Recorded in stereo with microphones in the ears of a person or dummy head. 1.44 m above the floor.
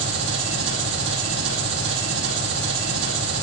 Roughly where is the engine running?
Right.